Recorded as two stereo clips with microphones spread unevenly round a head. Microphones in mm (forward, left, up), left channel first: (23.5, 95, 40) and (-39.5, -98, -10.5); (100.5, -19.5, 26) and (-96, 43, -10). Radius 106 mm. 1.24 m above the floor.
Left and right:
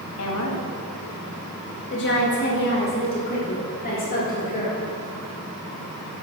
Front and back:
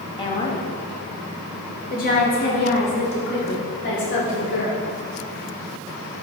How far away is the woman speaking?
About 2.5 m.